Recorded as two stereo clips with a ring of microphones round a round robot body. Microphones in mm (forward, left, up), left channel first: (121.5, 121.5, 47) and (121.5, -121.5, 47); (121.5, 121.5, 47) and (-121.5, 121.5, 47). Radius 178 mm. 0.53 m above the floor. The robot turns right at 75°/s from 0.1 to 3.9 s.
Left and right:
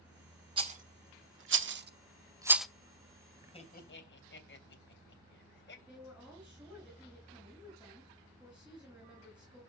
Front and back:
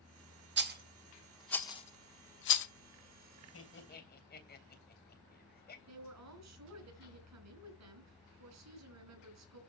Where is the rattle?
155° right, 0.8 m; by 2.7 s straight ahead, 0.8 m.